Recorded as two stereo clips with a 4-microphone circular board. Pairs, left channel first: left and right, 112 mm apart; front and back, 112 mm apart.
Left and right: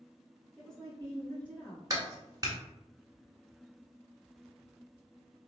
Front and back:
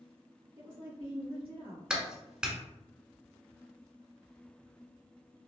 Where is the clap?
105° right, 1.0 m.